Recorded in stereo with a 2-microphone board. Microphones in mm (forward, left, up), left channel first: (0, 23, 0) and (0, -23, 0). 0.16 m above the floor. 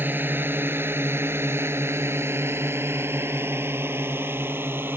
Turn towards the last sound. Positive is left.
turn(degrees=-50)  # may be behind; listen again after turning